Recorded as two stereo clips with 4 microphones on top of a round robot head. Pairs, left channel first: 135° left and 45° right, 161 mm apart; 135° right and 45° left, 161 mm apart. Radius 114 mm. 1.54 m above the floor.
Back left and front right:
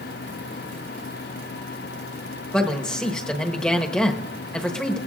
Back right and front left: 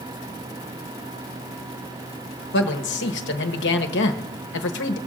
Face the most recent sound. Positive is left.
turn(degrees=-140)